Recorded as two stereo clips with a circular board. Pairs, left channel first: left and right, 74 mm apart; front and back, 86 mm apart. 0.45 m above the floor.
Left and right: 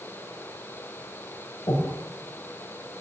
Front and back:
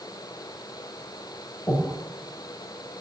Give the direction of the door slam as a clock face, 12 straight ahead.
No door slam in this recording.